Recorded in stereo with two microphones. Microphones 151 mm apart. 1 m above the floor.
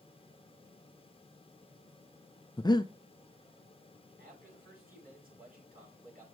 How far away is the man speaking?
About 7 m.